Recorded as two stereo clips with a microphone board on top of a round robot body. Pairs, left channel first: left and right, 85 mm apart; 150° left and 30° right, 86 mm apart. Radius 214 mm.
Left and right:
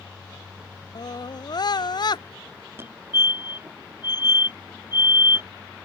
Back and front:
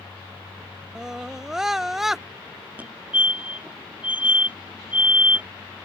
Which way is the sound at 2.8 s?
80° right.